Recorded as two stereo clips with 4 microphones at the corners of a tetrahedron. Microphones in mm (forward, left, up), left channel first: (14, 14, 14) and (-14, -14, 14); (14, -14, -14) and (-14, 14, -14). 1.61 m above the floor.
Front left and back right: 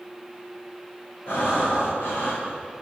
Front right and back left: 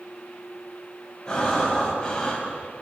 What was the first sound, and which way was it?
Breathing, 25° left.